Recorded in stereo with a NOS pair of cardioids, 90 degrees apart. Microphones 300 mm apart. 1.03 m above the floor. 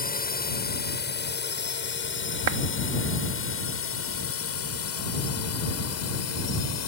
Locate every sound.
0.0 s a drone: 30° left; by 6.9 s 65° left
2.5 s a clap: 60° right